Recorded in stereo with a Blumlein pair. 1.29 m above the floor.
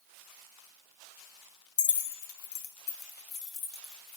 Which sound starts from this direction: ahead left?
Keys jangling, at 1.8 s.